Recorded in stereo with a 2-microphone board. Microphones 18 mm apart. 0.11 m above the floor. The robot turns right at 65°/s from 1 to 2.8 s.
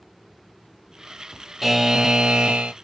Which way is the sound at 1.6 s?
Straight behind.